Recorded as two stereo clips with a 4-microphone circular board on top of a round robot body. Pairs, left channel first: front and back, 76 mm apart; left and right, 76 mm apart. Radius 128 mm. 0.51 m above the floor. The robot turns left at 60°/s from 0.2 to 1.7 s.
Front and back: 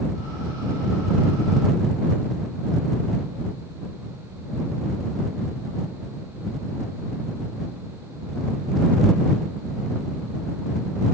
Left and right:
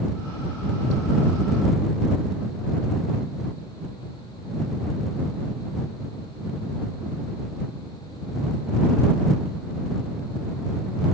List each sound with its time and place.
Only background noise.